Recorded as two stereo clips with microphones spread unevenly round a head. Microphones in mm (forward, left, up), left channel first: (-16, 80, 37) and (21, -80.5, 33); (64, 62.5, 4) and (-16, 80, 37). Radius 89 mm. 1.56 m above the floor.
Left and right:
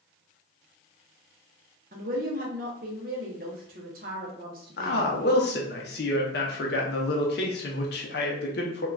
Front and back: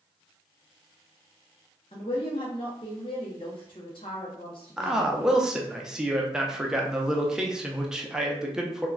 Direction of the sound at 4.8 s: 105° left.